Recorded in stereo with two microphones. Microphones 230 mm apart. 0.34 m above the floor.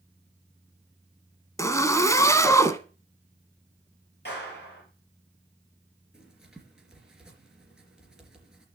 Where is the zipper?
15° left (ahead or behind), 1.0 m.